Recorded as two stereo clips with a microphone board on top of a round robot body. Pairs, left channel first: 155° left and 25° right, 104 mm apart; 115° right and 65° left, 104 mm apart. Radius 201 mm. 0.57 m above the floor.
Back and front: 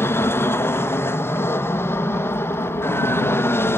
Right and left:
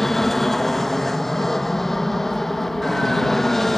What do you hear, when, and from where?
0.0 s an aircraft: 165° left